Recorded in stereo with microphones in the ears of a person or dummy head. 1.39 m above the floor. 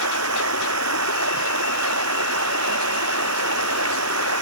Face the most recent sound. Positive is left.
turn(degrees=-80)